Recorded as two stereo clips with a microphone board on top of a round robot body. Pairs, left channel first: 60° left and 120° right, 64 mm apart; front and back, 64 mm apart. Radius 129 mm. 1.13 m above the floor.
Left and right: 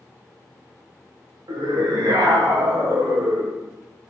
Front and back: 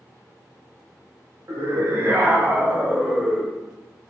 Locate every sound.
1.5 s a scream: 135° right, 2 m; by 3.6 s 95° right, 1.4 m